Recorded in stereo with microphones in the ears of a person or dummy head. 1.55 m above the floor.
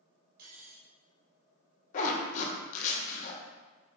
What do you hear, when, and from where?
0.4 s cutlery clinking: 50° right (ahead or behind), 2.5 m
1.9 s a zipper: 45° left (ahead or behind), 1.3 m